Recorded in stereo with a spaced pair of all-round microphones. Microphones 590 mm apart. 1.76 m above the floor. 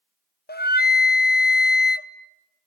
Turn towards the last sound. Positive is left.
turn(degrees=20)  # may be behind; listen again after turning